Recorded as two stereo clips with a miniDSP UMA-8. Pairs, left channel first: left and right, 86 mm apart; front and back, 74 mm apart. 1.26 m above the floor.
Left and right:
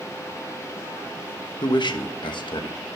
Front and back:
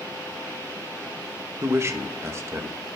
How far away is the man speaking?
About 1.3 m.